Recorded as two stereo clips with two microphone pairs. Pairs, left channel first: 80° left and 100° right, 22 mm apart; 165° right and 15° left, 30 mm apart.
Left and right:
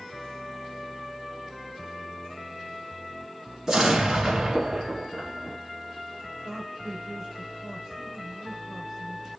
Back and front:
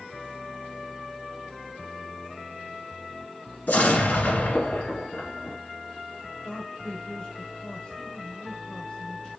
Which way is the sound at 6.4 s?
160° right.